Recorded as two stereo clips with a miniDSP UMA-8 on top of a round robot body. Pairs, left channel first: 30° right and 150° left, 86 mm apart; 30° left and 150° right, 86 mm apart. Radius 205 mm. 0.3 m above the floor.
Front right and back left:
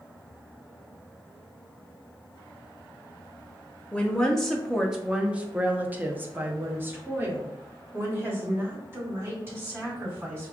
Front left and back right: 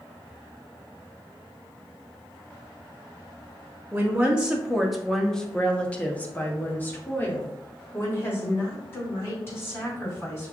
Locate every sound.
3.9 s a woman speaking: 100° right, 1.1 m; by 10.5 s 90° left, 3.5 m